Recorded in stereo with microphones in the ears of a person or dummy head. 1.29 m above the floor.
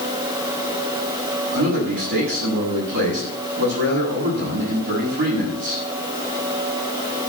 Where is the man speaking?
60° right (ahead or behind), 8 m.